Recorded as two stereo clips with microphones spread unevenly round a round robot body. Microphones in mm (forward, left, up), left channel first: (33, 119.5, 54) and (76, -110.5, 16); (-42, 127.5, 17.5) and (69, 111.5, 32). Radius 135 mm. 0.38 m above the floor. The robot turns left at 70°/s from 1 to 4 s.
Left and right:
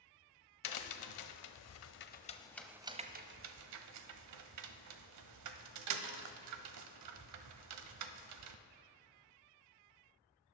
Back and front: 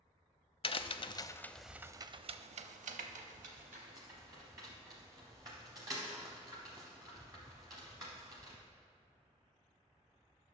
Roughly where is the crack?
Behind left.